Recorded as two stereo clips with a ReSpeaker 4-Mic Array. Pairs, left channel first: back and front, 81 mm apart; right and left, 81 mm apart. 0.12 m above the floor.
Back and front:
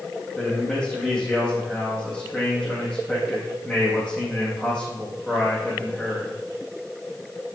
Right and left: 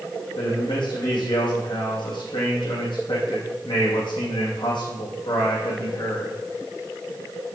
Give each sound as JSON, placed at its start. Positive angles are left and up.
{"t": 0.3, "sound": "a man speaking", "azimuth_deg": -90, "distance_m": 5.0}